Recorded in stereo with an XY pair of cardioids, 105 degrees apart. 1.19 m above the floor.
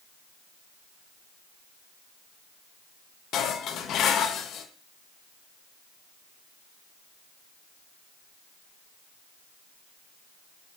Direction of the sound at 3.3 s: 70° left.